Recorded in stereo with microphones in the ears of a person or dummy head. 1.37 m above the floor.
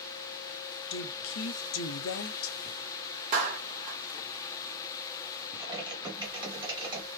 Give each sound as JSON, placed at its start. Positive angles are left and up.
{"t": 0.9, "sound": "a woman speaking", "side_deg": 65, "distance_m": 0.6}
{"t": 3.3, "sound": "a clap", "side_deg": -45, "distance_m": 1.3}
{"t": 5.6, "sound": "typing on a keyboard", "side_deg": -20, "distance_m": 1.0}